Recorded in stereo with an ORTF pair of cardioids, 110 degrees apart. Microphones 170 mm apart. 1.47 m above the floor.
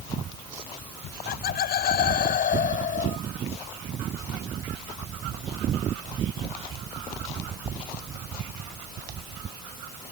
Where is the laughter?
65° left; by 3.2 s 50° left.